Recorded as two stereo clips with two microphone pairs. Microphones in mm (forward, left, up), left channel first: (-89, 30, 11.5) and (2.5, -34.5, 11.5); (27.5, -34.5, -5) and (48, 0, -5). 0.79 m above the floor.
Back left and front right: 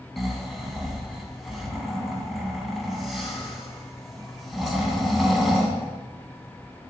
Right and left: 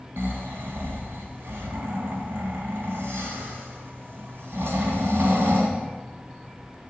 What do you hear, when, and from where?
0.2 s snoring: 55° left, 2.5 m